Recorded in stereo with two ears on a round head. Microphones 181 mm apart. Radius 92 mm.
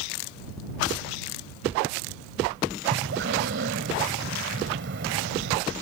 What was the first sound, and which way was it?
Breathing, 55° right (ahead or behind).